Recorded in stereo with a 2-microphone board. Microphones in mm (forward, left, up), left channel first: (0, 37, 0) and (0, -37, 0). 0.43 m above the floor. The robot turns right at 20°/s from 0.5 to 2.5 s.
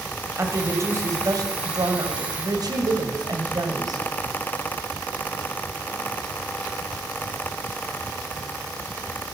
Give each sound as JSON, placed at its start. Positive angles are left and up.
{"t": 0.4, "sound": "a woman speaking", "azimuth_deg": -135, "distance_m": 2.5}